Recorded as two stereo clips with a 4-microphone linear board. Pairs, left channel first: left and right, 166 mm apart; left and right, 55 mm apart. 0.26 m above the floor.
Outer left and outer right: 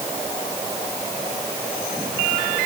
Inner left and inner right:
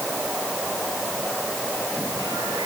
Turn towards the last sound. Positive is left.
No sound to turn to.